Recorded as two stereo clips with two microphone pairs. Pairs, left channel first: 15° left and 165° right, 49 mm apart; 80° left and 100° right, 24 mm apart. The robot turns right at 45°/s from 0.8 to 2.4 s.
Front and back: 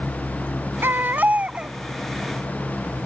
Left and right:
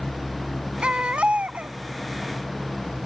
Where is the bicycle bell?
I don't hear a bicycle bell.